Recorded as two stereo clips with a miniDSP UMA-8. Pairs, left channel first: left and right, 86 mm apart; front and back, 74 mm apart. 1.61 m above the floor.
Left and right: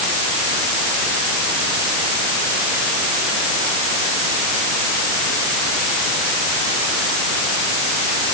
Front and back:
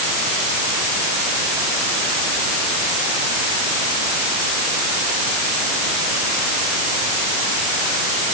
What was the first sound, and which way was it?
Only background noise.